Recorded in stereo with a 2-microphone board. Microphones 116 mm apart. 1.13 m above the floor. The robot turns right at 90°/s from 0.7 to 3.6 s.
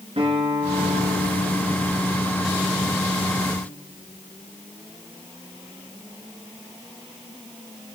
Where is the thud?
No thud in this recording.